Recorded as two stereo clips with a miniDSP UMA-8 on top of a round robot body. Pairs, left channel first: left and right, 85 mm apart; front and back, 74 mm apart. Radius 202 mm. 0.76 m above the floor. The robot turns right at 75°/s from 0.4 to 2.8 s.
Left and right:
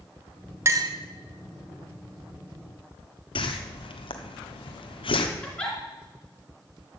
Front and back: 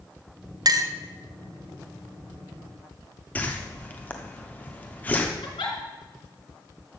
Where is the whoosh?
70° left, 1.1 m.